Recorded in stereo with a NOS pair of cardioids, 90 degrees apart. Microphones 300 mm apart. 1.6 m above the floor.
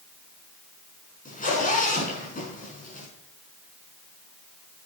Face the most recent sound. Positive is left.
turn(degrees=30)